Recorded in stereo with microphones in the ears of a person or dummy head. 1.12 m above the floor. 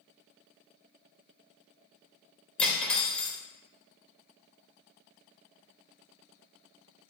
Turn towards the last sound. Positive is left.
turn(degrees=10)  # may be behind; listen again after turning